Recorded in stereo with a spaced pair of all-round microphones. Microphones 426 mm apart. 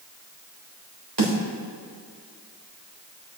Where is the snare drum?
70° right (ahead or behind), 3.5 m.